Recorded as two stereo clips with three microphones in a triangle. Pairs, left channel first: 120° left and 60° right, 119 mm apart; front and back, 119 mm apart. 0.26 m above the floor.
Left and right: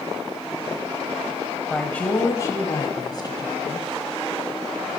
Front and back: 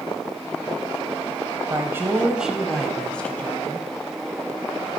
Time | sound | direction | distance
1.7 | a woman speaking | 160° right | 1.0 m